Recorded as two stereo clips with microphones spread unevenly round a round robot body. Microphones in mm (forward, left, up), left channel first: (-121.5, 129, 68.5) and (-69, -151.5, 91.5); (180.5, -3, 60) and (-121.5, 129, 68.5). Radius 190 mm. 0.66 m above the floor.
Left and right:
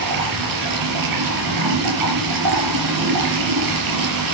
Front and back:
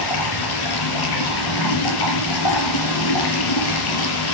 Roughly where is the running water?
Ahead right.